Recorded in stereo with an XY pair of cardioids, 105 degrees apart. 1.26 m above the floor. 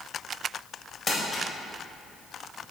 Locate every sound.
1.1 s crumpling: 30° left, 3.5 m